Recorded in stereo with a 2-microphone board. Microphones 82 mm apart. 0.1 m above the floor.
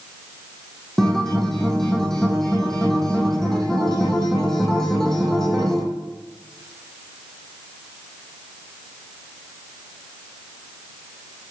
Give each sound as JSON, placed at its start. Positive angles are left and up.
{"t": 1.0, "sound": "a guitar", "side_deg": 5, "distance_m": 3.0}